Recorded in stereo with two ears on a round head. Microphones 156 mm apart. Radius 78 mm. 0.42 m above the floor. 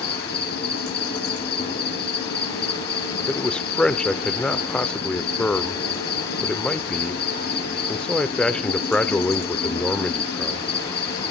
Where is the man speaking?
5° left (ahead or behind), 0.8 m.